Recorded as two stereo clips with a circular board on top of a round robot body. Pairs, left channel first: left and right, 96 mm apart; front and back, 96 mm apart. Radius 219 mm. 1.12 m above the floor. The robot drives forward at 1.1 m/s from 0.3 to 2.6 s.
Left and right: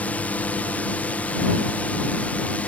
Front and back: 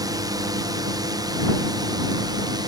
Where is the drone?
160° left.